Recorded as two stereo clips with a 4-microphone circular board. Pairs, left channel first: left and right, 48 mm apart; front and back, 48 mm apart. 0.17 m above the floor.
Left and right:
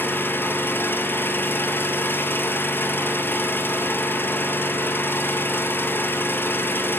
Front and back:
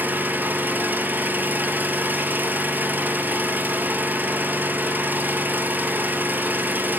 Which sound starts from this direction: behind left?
An engine running, at 0.0 s.